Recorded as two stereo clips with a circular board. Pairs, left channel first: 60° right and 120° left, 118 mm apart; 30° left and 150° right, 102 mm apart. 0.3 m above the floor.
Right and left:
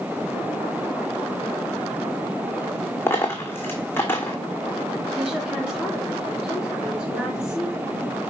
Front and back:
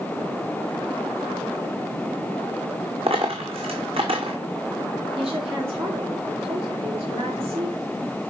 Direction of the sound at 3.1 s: 130° right.